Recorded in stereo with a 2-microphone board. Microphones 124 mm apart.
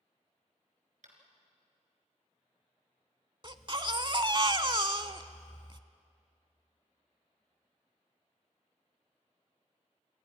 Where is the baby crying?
40° right (ahead or behind), 0.8 m.